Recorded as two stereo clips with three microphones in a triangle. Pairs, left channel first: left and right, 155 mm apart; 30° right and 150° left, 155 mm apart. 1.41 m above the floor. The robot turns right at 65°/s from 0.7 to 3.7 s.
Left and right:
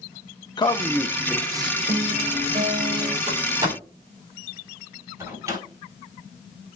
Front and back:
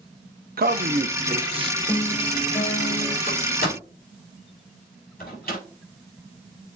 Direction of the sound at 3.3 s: 45° right.